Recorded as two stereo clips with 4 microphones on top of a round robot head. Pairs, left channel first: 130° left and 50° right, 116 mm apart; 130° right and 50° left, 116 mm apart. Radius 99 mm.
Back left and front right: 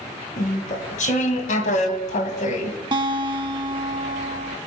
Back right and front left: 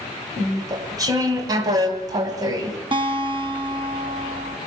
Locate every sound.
0.4 s chewing: 110° left, 2.5 m
2.9 s a guitar: straight ahead, 1.7 m